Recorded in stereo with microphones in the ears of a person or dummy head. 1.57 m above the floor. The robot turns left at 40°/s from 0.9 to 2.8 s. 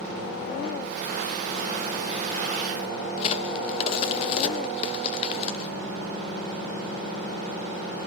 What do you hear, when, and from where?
3.2 s a crack: 35° left (ahead or behind), 0.6 m